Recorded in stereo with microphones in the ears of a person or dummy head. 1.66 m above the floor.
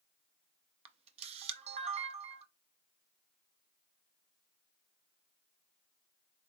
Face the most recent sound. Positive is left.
turn(degrees=-40)  # may be behind; listen again after turning